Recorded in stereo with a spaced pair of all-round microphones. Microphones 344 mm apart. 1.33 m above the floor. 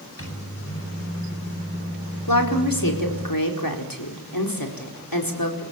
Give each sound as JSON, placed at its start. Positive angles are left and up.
{"t": 0.2, "sound": "a microwave", "side_deg": 40, "distance_m": 8.5}
{"t": 2.3, "sound": "a woman speaking", "side_deg": 75, "distance_m": 4.5}